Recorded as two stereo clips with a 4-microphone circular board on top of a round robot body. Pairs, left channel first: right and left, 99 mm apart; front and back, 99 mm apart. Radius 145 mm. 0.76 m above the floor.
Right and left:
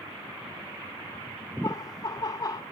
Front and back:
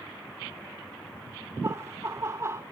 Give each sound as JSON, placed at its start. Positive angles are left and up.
{"t": 1.6, "sound": "laughter", "azimuth_deg": -125, "distance_m": 0.7}